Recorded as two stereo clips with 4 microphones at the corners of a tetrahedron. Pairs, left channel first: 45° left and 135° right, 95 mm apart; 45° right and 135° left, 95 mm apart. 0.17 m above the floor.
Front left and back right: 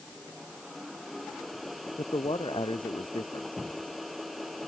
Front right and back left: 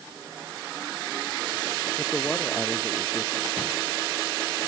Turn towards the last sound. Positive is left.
turn(degrees=25)